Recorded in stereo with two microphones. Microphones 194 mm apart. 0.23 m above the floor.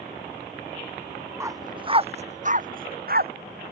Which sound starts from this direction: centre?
A dog barking, at 1.4 s.